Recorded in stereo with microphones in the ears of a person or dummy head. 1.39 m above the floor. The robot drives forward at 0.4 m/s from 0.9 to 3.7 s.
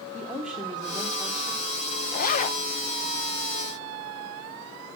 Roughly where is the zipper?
Left.